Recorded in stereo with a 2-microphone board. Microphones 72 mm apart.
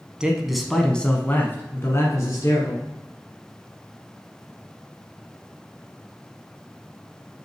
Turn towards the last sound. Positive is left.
turn(degrees=50)  # may be behind; listen again after turning